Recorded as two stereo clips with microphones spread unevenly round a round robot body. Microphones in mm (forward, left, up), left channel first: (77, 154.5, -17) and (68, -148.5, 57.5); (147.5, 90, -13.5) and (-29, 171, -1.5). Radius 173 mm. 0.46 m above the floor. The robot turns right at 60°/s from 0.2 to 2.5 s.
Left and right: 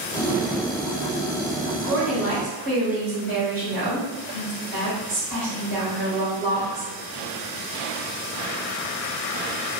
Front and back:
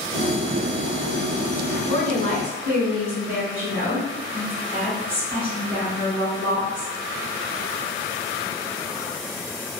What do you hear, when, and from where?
1.9 s a woman speaking: 170° right, 1.8 m; by 6.9 s 130° right, 1.8 m